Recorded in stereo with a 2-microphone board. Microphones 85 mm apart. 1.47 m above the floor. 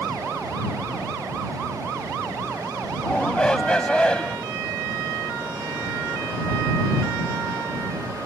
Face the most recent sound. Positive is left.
turn(degrees=10)  # may be behind; listen again after turning